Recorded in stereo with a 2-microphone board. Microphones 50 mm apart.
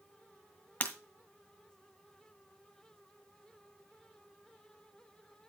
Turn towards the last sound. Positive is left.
turn(degrees=35)  # may be behind; listen again after turning